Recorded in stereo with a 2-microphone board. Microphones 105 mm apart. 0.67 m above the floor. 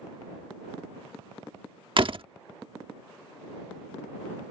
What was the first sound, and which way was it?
A door slam, 55° right (ahead or behind).